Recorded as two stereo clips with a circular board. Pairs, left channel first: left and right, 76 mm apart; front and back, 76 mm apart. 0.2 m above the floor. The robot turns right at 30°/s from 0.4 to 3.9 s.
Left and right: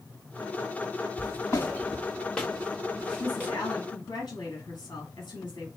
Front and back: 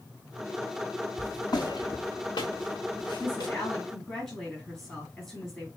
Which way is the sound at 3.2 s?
55° left.